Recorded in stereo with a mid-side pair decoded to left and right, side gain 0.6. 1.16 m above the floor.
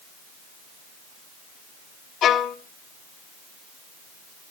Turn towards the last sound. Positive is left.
turn(degrees=55)